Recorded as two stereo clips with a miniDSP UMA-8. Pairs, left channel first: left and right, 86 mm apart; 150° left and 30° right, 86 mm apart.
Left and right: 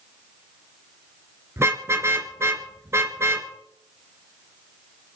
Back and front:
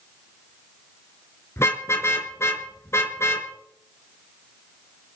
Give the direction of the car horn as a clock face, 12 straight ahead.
5 o'clock.